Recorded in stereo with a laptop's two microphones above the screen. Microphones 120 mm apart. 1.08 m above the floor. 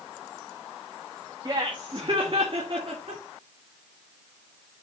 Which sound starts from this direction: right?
Laughter, at 1.4 s.